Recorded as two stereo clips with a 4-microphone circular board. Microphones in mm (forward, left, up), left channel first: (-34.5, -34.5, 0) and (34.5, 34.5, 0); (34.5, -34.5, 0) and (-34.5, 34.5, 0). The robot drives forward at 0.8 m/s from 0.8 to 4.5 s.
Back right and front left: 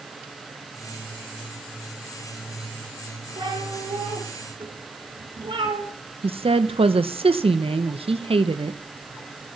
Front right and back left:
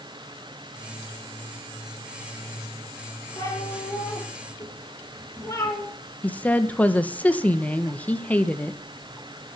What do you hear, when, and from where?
3.4 s a cat meowing: 15° left, 8.5 m
6.2 s a woman speaking: 30° left, 1.9 m